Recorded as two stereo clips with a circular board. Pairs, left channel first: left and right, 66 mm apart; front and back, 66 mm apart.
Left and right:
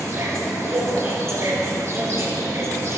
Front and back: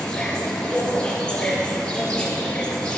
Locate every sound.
0.0 s an insect: 70° right, 2.5 m